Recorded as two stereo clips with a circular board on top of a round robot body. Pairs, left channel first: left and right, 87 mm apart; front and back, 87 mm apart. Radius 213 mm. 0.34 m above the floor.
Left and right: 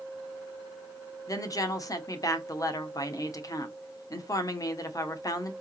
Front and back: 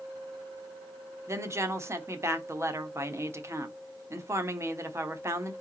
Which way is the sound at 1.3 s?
130° left.